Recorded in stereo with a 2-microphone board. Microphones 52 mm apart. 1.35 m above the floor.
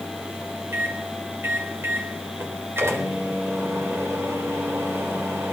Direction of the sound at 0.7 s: 55° right (ahead or behind).